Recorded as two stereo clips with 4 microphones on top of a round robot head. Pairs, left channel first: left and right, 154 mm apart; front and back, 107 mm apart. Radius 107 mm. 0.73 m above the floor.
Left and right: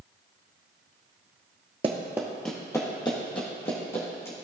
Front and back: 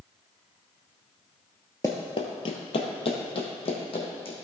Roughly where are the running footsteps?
Ahead right.